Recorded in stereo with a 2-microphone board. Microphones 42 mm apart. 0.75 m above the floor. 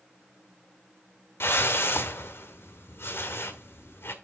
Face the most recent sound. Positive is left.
turn(degrees=70)  # may be behind; listen again after turning